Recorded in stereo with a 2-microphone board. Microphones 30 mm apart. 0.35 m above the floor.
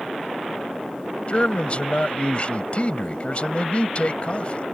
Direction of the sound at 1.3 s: 40° left (ahead or behind).